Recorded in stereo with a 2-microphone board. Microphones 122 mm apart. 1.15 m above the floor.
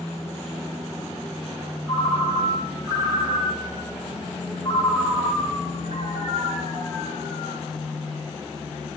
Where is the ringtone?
35° left (ahead or behind), 4 m.